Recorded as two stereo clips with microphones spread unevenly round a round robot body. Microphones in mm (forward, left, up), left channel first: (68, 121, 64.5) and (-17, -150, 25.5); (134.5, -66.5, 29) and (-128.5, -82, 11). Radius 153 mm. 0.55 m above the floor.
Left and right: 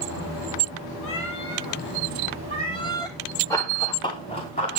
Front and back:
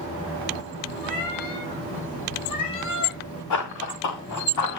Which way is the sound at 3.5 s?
5° right.